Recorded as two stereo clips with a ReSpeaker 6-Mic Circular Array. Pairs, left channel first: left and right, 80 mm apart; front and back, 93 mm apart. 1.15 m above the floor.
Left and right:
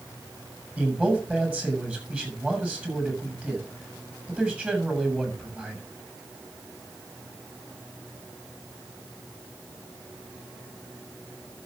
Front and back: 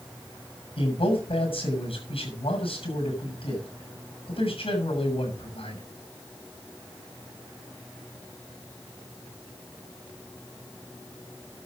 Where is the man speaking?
15° right, 7 m.